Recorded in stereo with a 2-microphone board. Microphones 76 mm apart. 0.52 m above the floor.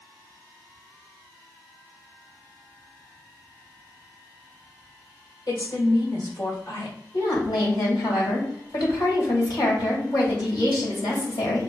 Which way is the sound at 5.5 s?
60° left (ahead or behind).